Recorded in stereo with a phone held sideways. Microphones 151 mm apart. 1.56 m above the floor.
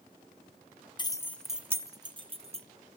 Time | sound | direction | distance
1.0 | keys jangling | 30° left (ahead or behind) | 0.5 m